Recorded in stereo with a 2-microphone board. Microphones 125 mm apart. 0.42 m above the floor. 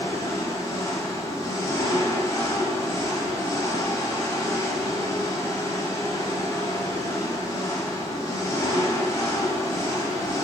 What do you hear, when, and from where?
0.0 s an engine running: 30° left (ahead or behind), 1.5 m